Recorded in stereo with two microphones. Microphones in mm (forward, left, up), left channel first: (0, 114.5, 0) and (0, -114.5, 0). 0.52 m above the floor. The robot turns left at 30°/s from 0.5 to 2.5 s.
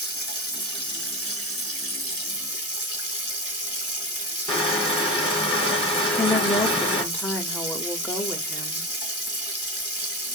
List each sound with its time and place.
0.0 s running water: 110° left, 2.0 m; by 10.3 s 50° left, 2.0 m
4.5 s crushing: 25° left (ahead or behind), 2.5 m
6.0 s a woman speaking: 5° left (ahead or behind), 0.9 m